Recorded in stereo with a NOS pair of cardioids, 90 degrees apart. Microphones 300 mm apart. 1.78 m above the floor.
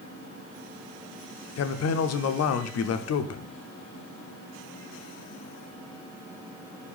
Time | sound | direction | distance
1.6 | a man speaking | 55° left | 0.8 m